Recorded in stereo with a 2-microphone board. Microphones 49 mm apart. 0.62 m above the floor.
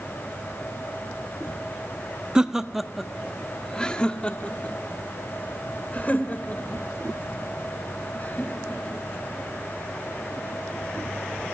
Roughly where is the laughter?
Centre.